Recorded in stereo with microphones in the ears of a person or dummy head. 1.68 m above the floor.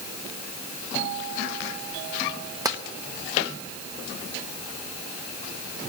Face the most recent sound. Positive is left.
turn(degrees=-20)  # may be behind; listen again after turning